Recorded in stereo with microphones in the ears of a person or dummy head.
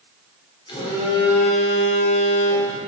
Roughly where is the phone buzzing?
Left.